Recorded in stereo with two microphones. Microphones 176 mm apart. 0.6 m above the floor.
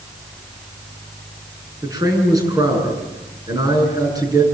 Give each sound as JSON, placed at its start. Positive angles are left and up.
{"t": 1.8, "sound": "a man speaking", "side_deg": -20, "distance_m": 8.5}